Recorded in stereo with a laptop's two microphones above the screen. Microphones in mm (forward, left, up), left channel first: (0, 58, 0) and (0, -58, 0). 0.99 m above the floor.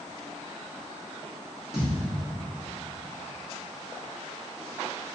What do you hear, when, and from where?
1.7 s a thud: 5° right (ahead or behind), 0.7 m